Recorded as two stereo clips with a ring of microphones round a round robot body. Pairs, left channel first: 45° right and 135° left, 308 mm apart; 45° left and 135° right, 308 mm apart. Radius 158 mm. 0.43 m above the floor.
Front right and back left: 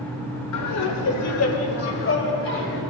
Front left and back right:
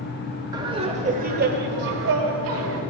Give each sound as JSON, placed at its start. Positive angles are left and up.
{"t": 0.5, "sound": "laughter", "azimuth_deg": -60, "distance_m": 1.4}